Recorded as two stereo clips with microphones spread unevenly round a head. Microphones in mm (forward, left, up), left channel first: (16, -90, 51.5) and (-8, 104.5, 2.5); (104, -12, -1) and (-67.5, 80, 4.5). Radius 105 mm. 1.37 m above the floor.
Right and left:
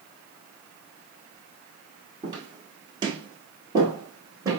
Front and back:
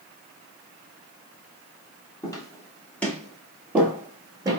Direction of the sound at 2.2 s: 20° left.